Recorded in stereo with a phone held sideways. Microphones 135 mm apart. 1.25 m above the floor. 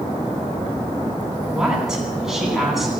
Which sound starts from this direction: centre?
A woman speaking, at 1.5 s.